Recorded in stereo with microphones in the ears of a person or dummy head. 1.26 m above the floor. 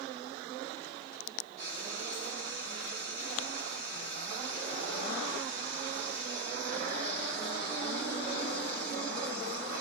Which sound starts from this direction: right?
Frying, at 1.6 s.